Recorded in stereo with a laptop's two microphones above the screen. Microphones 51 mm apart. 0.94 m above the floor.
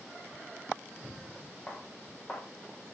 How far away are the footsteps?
About 4 m.